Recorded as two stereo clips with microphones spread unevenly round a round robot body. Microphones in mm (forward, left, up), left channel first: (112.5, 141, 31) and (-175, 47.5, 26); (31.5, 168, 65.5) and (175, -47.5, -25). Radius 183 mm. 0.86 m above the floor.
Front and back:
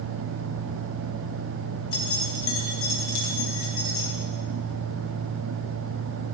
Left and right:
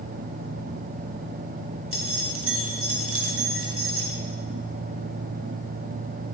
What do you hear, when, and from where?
1.9 s keys jangling: 20° right, 4.5 m